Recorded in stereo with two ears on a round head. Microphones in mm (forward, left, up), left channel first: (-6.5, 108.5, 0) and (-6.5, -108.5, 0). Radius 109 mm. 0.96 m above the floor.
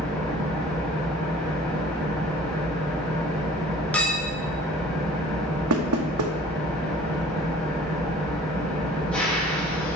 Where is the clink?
5° left (ahead or behind), 0.9 m.